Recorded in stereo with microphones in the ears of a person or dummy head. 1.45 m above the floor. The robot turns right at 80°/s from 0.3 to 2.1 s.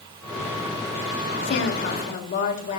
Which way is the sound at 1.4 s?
80° left.